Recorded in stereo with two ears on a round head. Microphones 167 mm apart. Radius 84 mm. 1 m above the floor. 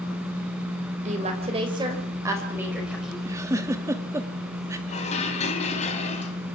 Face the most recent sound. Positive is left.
turn(degrees=35)  # may be behind; listen again after turning